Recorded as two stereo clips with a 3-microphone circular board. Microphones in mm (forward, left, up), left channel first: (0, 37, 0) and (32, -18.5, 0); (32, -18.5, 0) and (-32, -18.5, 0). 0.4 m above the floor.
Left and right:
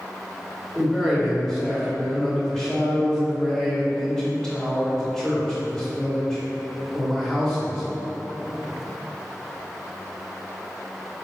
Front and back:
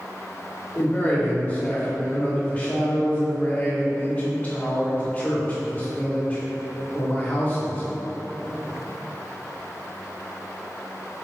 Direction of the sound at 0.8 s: 45° left.